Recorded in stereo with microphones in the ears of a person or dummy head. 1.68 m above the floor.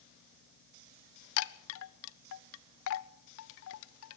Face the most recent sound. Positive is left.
turn(degrees=70)  # may be behind; listen again after turning